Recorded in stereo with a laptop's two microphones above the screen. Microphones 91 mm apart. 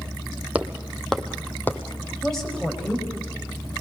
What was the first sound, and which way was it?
Footsteps, 15° right (ahead or behind).